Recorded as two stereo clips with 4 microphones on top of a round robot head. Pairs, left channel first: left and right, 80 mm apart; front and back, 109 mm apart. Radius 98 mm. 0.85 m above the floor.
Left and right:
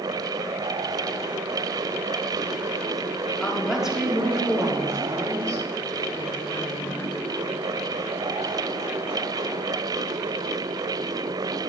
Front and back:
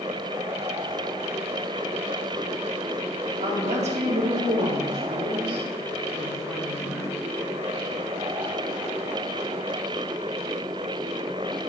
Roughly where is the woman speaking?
Behind.